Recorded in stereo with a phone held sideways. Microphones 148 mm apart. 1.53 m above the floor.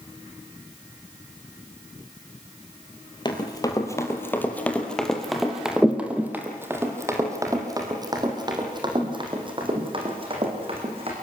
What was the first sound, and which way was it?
Running footsteps, 30° left (ahead or behind).